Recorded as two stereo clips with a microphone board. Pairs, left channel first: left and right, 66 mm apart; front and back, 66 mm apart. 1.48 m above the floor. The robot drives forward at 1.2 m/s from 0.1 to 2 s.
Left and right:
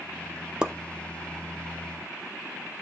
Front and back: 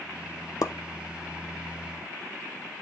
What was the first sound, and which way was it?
A pop, 15° right.